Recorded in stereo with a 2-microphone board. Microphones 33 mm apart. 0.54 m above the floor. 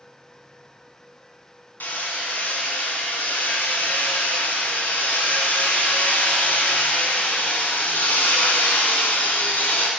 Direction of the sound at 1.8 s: 85° left.